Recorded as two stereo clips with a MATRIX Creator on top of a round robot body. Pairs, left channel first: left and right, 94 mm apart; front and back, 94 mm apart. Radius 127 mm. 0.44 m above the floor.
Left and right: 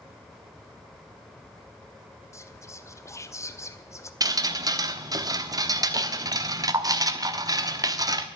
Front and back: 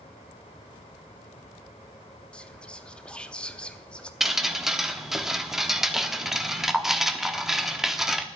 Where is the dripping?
95° right, 1.3 m.